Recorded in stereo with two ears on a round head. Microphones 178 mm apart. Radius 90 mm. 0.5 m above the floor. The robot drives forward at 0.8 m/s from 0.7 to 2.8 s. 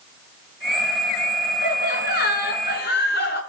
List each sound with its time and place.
1.6 s laughter: 45° left (ahead or behind), 5.5 m; by 3.4 s 50° left (ahead or behind), 5 m